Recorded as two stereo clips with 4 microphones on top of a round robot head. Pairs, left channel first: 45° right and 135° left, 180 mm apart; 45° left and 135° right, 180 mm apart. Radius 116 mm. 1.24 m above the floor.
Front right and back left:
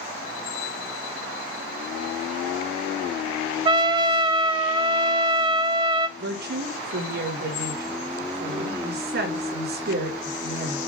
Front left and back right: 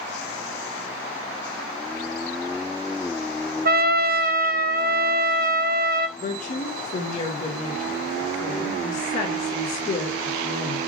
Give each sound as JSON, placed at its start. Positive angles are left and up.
{"t": 3.6, "sound": "a trumpet", "azimuth_deg": -165, "distance_m": 1.0}
{"t": 6.2, "sound": "a woman speaking", "azimuth_deg": 100, "distance_m": 4.5}